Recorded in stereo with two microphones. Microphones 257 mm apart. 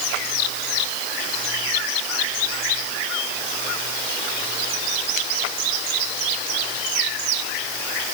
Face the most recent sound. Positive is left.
No sound to turn to.